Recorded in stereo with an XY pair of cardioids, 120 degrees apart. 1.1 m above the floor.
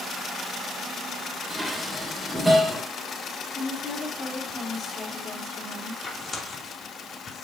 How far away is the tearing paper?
About 2.5 m.